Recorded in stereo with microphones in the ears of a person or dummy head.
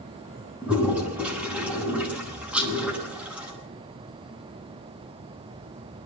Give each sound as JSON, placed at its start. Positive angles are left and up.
{"t": 0.6, "sound": "a toilet flushing", "side_deg": -10, "distance_m": 9.0}
{"t": 2.5, "sound": "a rattle", "side_deg": -5, "distance_m": 4.0}